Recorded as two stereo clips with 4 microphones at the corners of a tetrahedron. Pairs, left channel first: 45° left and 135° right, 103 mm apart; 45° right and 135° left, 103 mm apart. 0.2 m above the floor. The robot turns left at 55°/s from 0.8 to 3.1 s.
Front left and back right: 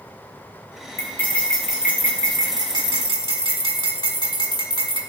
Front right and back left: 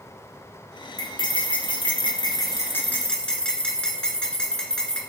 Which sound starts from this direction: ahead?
Cutlery clinking, at 1.0 s.